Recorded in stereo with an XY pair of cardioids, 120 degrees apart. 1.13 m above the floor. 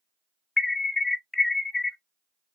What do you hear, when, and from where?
0.6 s an alarm: 20° left, 0.6 m